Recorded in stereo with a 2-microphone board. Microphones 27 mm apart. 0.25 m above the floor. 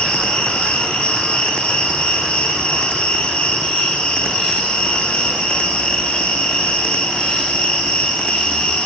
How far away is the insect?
About 8 m.